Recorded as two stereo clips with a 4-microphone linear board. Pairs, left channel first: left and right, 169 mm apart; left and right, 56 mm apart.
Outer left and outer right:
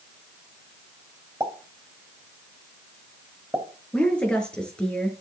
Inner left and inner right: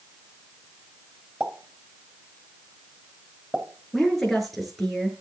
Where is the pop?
15° right (ahead or behind), 3.5 m.